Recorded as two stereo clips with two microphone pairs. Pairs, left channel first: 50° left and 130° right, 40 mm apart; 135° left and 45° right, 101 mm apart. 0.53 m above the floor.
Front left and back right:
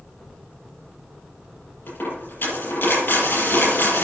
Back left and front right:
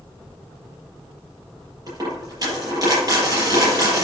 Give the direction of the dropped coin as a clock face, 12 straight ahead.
12 o'clock.